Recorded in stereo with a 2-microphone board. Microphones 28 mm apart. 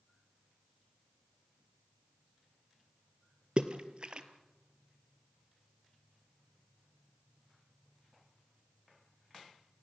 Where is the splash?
40° right (ahead or behind), 1.3 m.